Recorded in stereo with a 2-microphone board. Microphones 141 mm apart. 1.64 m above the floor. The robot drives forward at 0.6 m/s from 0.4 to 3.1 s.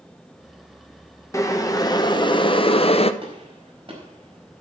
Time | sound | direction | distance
1.3 | boiling | 20° left (ahead or behind) | 1.3 m
3.2 | a gunshot | 40° right (ahead or behind) | 4.5 m